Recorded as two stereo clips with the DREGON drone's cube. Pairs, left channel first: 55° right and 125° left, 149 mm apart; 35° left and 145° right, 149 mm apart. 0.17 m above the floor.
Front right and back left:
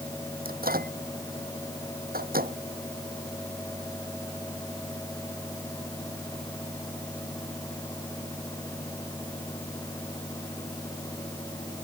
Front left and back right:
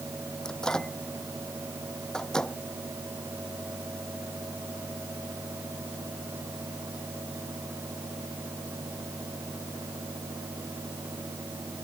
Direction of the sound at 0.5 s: 120° left.